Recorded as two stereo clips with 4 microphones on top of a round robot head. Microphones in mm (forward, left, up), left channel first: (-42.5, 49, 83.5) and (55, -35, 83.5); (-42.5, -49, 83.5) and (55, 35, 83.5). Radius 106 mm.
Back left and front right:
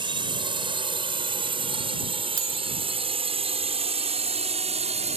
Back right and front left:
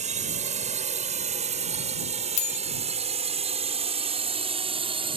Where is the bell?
105° right.